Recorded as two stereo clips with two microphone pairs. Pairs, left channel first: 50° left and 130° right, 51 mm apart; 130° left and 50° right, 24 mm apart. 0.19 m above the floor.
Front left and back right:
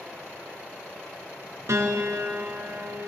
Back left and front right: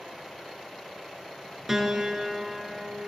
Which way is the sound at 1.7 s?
125° right.